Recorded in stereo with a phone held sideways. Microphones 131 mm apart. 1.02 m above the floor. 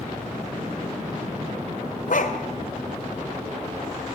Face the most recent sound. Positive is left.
turn(degrees=70)  # may be behind; listen again after turning